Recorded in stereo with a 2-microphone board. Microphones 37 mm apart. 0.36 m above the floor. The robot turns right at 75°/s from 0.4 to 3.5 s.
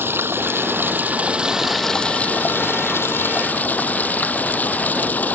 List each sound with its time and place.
0.0 s running water: 100° right; by 5.3 s 135° left